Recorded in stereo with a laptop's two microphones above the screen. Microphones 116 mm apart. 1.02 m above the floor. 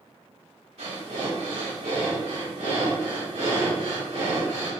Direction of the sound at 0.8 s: 60° right (ahead or behind).